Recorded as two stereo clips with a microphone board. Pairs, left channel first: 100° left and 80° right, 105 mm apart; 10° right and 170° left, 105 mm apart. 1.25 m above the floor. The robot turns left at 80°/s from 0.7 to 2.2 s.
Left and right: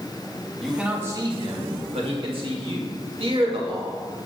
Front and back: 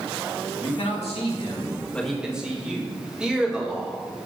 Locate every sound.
0.6 s a man speaking: 10° left, 2 m; by 4.0 s 110° right, 2 m